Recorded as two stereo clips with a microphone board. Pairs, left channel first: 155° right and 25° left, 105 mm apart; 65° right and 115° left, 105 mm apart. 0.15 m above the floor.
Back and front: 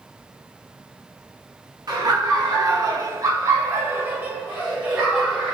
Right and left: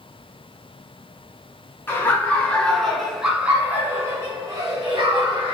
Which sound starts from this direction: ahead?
Laughter, at 1.9 s.